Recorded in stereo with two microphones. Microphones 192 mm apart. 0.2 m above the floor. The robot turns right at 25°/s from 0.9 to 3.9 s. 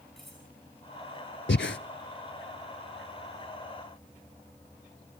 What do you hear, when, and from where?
0.2 s cutlery clinking: centre (ahead or behind), 10 m
1.5 s breathing: 70° left (ahead or behind), 0.7 m; by 1.8 s 80° left, 0.7 m